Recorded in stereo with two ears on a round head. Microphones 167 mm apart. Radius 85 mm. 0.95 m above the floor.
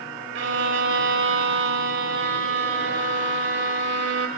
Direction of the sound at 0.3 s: 65° right (ahead or behind).